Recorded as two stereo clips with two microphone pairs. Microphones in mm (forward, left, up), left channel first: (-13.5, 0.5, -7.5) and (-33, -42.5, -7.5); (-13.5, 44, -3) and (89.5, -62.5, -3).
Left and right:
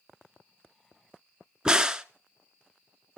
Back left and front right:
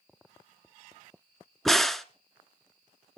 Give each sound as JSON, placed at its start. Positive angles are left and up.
{"t": 1.6, "sound": "a crack", "azimuth_deg": -130, "distance_m": 0.5}